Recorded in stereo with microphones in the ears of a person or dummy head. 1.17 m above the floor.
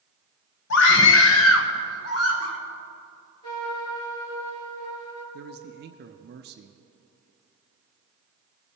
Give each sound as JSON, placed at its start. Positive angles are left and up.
{"t": 0.7, "sound": "a scream", "side_deg": 60, "distance_m": 0.9}
{"t": 3.4, "sound": "a trumpet", "side_deg": 30, "distance_m": 3.0}
{"t": 5.3, "sound": "a man speaking", "side_deg": -50, "distance_m": 0.6}